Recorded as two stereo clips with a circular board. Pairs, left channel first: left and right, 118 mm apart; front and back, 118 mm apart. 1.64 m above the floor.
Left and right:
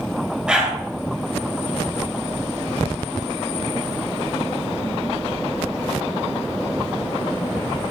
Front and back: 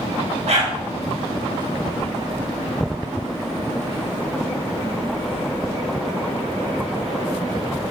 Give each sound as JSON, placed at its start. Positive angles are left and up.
{"t": 0.5, "sound": "a dog barking", "azimuth_deg": -175, "distance_m": 3.5}